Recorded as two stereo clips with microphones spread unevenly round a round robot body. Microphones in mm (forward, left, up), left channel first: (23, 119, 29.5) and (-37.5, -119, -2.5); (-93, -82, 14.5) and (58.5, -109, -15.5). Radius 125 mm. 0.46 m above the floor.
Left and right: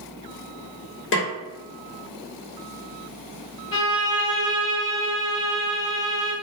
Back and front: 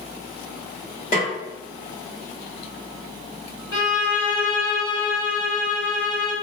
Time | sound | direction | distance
1.1 | a snare drum | 110° left | 1.0 m
3.7 | a violin | 120° left | 1.1 m